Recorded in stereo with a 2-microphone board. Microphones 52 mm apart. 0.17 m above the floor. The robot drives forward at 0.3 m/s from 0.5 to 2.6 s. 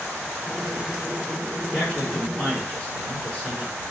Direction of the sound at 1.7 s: 25° left (ahead or behind).